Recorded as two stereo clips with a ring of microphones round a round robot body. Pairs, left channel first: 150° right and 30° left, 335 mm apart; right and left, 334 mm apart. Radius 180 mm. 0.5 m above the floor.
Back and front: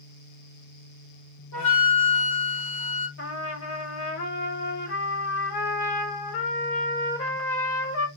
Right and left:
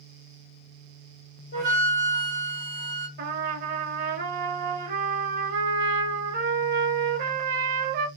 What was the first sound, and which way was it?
A flute, 135° right.